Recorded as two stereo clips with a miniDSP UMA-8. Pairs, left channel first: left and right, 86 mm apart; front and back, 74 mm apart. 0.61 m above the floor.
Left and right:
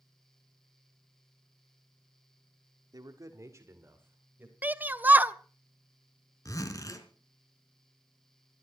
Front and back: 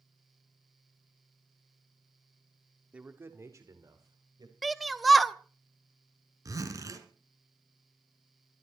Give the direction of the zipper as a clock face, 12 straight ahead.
7 o'clock.